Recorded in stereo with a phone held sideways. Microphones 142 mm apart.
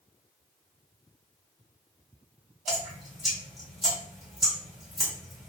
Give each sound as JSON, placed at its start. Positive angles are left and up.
{"t": 2.7, "sound": "dripping", "side_deg": 0, "distance_m": 1.3}